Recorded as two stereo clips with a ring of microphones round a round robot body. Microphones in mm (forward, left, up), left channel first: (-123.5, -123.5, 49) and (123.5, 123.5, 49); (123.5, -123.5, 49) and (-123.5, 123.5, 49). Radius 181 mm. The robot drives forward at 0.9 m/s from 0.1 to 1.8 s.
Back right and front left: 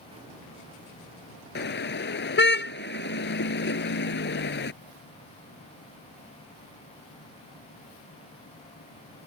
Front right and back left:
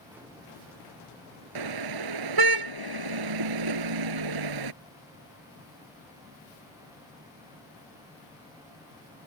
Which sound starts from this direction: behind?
A car horn, at 1.6 s.